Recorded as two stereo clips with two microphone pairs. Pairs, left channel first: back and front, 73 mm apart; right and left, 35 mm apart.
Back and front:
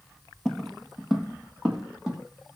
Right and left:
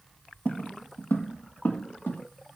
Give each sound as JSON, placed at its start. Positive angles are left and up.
{"t": 0.5, "sound": "footsteps", "azimuth_deg": -95, "distance_m": 0.6}